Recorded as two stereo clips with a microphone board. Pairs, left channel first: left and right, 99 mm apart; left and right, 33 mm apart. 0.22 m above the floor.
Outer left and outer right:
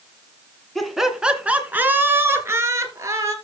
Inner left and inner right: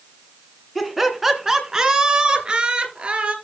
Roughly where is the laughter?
Centre.